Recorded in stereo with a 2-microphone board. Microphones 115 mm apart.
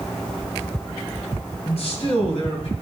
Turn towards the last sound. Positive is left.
turn(degrees=60)  # may be behind; listen again after turning